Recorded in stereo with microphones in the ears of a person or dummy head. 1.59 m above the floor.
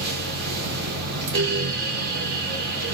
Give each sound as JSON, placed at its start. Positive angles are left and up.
{"t": 0.0, "sound": "a fan", "side_deg": -55, "distance_m": 1.1}